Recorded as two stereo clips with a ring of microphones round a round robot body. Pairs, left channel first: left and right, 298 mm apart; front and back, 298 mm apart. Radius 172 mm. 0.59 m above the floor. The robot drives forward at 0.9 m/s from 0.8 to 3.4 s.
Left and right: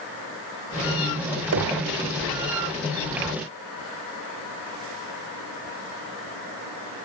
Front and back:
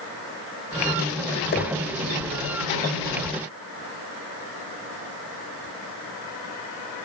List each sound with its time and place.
1.5 s knocking: 60° right, 2 m; by 1.8 s 65° right, 2 m